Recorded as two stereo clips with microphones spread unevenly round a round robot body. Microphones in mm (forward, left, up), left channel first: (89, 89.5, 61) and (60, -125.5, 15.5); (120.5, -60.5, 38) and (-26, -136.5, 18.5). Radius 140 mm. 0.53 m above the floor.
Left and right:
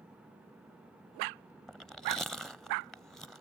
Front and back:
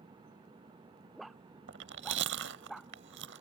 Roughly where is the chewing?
Behind.